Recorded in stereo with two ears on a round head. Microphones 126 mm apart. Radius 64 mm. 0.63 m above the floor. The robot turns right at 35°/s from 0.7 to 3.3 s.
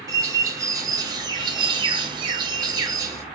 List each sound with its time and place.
0.1 s a bird: 130° right, 0.6 m; by 3.2 s 40° right, 0.6 m